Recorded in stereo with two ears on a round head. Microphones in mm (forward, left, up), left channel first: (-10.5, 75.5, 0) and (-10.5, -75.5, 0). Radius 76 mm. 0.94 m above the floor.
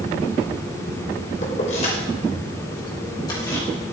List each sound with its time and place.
1.4 s keys jangling: 45° left (ahead or behind), 3 m; by 3.7 s 20° left (ahead or behind), 3.5 m